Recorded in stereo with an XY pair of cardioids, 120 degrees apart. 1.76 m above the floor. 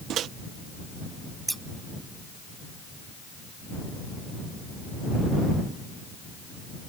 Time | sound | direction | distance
0.1 | a microwave | 65° right | ?
1.5 | scissors | 10° right | ?